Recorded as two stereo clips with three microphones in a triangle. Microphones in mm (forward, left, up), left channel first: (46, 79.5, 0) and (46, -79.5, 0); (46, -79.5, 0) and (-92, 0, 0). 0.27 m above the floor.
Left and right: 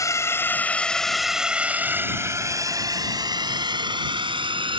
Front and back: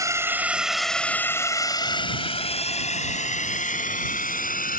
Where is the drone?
120° left; by 4.8 s 35° right.